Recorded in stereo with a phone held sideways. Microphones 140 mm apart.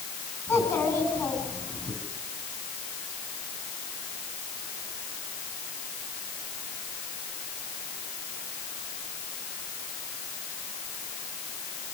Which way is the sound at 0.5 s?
15° left (ahead or behind).